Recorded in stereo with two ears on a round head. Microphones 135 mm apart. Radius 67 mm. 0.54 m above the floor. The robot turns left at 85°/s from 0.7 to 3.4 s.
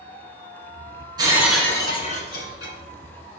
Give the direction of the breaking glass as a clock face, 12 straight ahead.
5 o'clock.